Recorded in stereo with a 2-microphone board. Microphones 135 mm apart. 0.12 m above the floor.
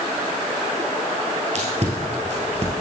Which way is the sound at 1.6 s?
55° right (ahead or behind).